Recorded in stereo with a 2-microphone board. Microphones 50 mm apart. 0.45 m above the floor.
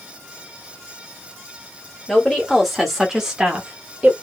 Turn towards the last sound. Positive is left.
turn(degrees=-25)  # may be behind; listen again after turning